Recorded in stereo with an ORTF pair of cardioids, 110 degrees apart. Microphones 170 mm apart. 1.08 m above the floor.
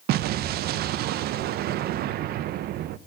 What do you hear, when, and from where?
0.1 s an explosion: 70° right, 0.6 m